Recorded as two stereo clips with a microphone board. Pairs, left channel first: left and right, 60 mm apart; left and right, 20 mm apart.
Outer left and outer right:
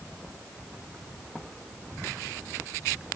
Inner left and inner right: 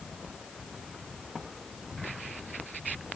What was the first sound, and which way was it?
Only background noise.